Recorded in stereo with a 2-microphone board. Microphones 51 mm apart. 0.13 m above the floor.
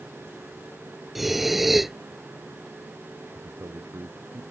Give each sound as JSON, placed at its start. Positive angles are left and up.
{"t": 1.1, "sound": "breathing", "side_deg": -5}
{"t": 3.4, "sound": "a man speaking", "side_deg": -70}